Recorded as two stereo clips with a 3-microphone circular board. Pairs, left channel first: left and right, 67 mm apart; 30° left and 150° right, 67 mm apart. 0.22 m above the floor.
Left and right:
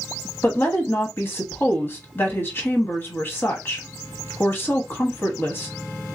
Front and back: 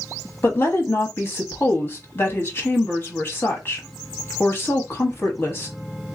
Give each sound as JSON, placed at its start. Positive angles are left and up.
{"t": 0.4, "sound": "a woman speaking", "azimuth_deg": 60, "distance_m": 1.2}